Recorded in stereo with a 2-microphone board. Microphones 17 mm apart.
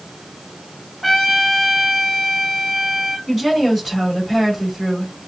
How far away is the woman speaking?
About 3 m.